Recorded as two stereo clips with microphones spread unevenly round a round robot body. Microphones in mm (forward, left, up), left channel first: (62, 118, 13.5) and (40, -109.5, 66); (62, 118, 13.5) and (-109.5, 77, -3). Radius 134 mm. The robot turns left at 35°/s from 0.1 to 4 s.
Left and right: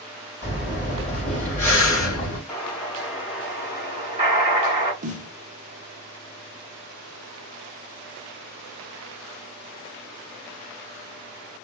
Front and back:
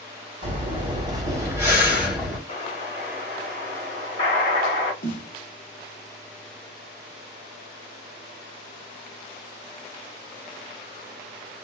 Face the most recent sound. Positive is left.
turn(degrees=-35)